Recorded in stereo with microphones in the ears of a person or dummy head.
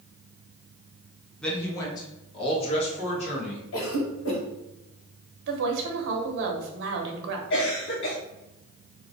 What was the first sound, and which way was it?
A man speaking, 5° left (ahead or behind).